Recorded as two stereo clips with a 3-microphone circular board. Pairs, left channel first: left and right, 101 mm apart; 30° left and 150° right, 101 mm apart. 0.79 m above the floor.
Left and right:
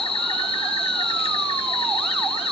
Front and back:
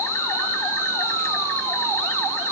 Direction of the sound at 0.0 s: 90° left.